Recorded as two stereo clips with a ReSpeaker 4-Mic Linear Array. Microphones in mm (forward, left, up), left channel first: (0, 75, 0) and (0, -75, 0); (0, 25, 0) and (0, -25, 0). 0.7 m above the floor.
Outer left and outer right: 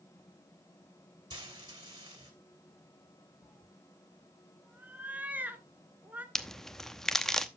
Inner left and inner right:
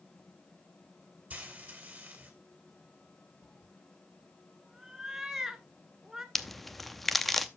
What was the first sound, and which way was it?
Frying, 30° right (ahead or behind).